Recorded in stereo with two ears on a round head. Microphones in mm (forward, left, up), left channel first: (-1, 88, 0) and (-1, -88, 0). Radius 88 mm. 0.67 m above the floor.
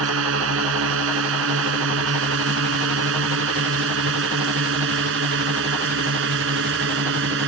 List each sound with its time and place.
0.0 s a drone: 75° right (ahead or behind); by 7.5 s 65° right (ahead or behind)